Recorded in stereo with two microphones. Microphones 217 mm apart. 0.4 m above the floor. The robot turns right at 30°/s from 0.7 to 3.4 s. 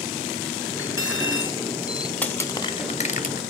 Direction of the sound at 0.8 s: 80° left.